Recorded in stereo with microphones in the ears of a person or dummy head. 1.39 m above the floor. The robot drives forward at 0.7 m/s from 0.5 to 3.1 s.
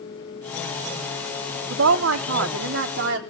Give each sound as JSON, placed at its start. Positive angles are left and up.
{"t": 1.7, "sound": "a woman speaking", "side_deg": -80, "distance_m": 1.1}